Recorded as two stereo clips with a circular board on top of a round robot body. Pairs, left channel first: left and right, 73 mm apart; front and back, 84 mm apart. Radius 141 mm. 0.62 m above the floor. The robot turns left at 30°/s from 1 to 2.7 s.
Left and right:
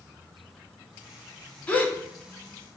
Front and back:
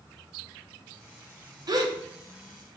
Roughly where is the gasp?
Behind left.